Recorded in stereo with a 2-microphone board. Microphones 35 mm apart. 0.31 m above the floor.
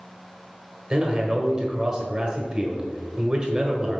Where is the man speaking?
25° right (ahead or behind), 1.3 m.